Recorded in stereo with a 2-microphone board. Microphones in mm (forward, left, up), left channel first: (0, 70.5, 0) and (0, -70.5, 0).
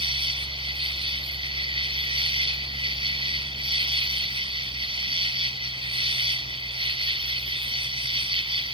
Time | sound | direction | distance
0.0 | an insect | 40° right (ahead or behind) | ?